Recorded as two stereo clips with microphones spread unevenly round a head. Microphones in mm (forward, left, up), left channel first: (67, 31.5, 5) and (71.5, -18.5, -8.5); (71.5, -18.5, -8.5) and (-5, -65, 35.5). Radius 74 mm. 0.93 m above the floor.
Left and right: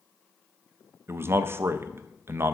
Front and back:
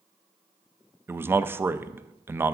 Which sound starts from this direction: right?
A man speaking, at 1.1 s.